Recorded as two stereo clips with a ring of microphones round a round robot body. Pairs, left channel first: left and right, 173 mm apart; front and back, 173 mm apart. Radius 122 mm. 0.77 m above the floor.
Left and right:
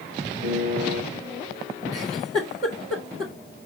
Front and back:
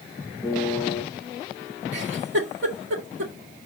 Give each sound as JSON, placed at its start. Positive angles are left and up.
{"t": 0.4, "sound": "a piano", "azimuth_deg": -80, "distance_m": 4.0}
{"t": 1.9, "sound": "a giggle", "azimuth_deg": -165, "distance_m": 2.0}